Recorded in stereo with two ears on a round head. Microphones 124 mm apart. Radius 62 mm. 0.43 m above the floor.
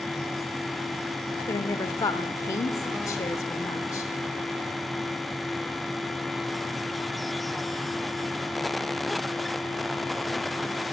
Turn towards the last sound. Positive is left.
turn(degrees=25)  # may be behind; listen again after turning